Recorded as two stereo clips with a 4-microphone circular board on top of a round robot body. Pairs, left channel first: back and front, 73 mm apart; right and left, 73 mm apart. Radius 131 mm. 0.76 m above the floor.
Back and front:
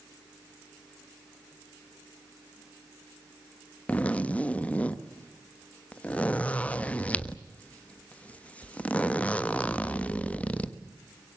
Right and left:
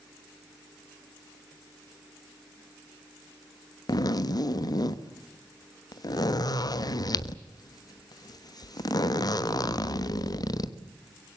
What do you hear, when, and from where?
3.9 s a zipper: 110° right, 1.4 m